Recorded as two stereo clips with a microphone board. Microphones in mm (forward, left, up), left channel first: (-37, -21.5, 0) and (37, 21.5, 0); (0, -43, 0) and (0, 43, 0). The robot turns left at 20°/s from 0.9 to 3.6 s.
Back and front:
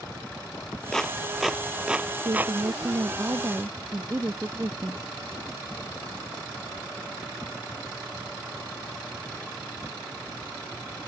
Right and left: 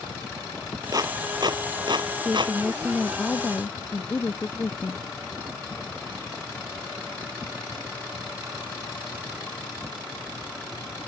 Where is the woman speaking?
5° left; by 5.0 s 25° right.